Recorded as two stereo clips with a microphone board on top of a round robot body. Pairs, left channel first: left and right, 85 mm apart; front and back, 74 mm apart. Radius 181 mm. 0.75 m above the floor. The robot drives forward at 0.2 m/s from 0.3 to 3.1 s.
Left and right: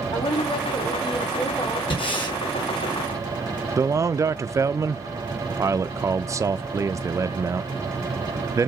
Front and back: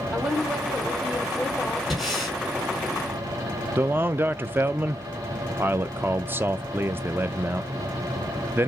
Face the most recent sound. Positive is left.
turn(degrees=-125)